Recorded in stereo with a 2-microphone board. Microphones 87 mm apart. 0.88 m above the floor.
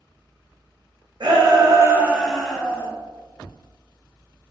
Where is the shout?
60° right (ahead or behind), 0.9 m; by 2.9 s 20° left (ahead or behind), 1.1 m.